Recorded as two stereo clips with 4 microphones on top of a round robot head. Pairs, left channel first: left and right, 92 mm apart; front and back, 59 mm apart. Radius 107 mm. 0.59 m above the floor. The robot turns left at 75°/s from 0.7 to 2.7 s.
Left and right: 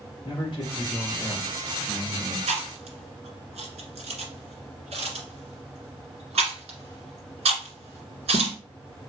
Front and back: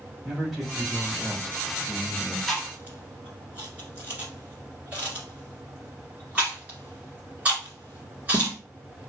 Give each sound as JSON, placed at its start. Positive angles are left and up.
{"t": 0.2, "sound": "a man speaking", "azimuth_deg": 90, "distance_m": 2.5}
{"t": 2.5, "sound": "chewing", "azimuth_deg": -90, "distance_m": 1.5}